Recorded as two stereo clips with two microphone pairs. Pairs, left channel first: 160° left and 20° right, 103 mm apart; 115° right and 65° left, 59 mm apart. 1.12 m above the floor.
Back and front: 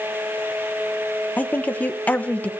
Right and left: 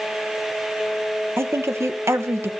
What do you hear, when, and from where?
1.4 s a woman speaking: 90° left, 1.1 m